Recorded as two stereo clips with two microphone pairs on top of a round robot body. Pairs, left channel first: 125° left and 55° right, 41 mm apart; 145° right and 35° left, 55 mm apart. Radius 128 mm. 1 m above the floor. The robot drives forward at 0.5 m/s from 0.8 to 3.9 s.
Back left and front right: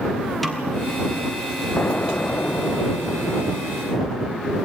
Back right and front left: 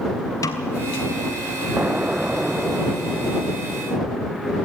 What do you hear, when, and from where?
0.4 s a snare drum: 155° right, 0.7 m
1.8 s an explosion: 85° left, 1.0 m; by 4.5 s 140° left, 1.4 m